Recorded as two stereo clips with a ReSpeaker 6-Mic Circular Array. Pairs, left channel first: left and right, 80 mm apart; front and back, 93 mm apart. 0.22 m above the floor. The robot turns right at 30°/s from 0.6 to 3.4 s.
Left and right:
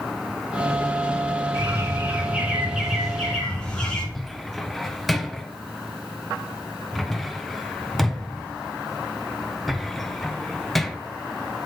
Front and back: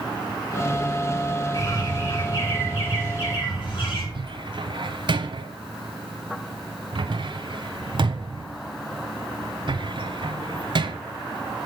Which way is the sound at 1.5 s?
45° right.